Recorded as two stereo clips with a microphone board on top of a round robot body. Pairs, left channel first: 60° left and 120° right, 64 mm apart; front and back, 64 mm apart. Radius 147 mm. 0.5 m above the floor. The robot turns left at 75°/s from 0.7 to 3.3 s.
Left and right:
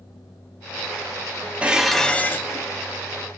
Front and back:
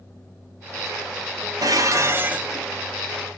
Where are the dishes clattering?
170° left, 0.6 m; by 2.7 s 90° left, 0.6 m.